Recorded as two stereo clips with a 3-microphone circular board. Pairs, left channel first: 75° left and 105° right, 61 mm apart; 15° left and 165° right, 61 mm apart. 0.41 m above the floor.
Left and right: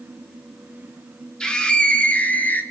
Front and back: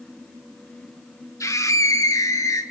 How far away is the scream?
About 2.5 m.